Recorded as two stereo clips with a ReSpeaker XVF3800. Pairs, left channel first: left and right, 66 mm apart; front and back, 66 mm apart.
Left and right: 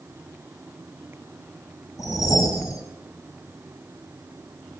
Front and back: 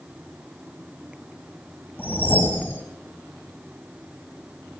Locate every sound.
2.0 s a whoosh: 60° left, 5 m